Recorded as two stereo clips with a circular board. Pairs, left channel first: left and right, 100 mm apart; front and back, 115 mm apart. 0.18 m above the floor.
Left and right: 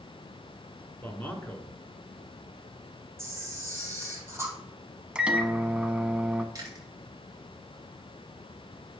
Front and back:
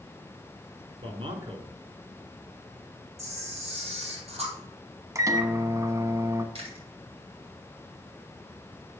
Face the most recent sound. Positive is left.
turn(degrees=-145)